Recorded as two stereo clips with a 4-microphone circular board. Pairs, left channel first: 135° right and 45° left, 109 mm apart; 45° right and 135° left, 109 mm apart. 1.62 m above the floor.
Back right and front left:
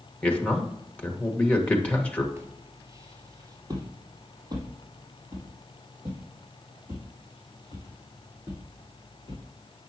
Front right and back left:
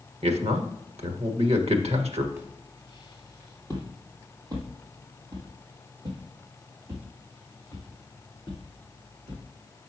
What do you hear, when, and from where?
0.2 s a man speaking: 145° left, 1.5 m
2.4 s footsteps: 90° left, 1.8 m